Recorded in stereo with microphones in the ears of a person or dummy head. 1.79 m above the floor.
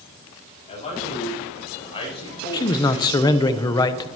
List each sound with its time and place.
0.7 s a man speaking: 40° left (ahead or behind), 8.5 m; by 3.5 s 25° left (ahead or behind), 7 m
2.5 s a man speaking: 20° left (ahead or behind), 0.7 m